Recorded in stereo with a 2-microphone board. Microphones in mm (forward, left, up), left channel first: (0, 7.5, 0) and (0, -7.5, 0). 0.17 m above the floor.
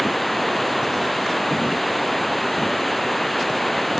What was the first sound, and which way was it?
Running water, 10° left (ahead or behind).